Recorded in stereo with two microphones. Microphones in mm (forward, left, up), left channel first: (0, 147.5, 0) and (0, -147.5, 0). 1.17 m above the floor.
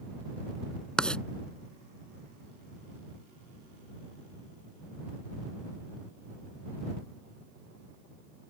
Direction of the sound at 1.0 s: 5° left (ahead or behind).